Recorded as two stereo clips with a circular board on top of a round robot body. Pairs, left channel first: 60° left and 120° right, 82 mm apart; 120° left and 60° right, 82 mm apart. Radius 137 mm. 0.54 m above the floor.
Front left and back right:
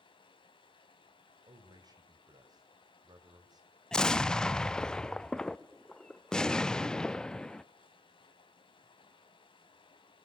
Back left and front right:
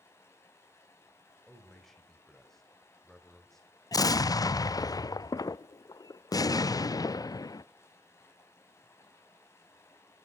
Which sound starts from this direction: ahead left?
Running water, at 0.0 s.